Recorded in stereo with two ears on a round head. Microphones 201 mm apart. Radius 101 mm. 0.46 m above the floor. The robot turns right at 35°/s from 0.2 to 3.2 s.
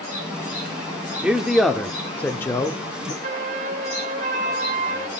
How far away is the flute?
About 0.7 m.